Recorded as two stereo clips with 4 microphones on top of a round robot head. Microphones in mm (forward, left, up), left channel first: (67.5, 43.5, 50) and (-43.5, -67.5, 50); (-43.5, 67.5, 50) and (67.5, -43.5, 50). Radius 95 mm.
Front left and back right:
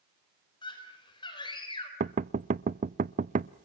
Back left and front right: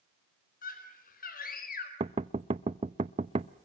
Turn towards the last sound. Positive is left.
turn(degrees=-100)